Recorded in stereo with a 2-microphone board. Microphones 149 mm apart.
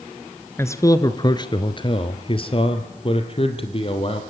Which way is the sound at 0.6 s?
15° left (ahead or behind).